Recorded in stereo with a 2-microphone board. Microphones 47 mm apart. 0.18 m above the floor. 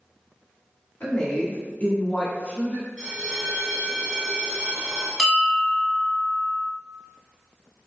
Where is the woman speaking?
35° left (ahead or behind), 1.3 m; by 2.9 s 30° left (ahead or behind), 1.7 m.